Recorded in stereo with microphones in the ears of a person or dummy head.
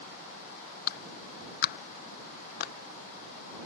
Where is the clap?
50° left (ahead or behind).